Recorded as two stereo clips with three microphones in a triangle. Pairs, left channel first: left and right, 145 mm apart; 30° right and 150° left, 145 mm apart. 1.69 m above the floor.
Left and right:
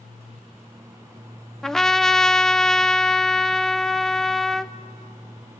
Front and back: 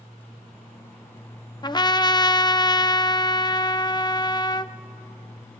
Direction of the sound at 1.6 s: 5° left.